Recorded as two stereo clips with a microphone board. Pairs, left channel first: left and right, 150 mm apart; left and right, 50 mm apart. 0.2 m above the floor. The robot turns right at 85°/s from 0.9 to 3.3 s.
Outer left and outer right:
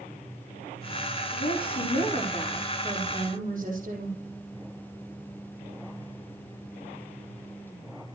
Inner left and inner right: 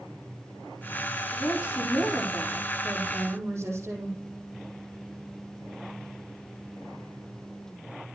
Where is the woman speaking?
70° left, 6 m; by 4.2 s 120° right, 6 m.